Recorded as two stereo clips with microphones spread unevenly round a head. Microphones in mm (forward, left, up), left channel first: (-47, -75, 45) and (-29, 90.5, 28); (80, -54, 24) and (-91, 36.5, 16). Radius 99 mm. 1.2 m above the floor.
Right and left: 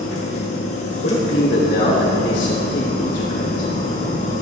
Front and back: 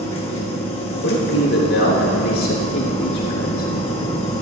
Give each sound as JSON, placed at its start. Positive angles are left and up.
{"t": 0.0, "sound": "a machine running", "azimuth_deg": -90, "distance_m": 1.5}
{"t": 1.0, "sound": "a man speaking", "azimuth_deg": -55, "distance_m": 3.5}